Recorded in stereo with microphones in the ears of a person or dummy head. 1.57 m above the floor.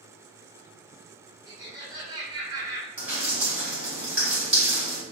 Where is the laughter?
20° right (ahead or behind), 1.4 m.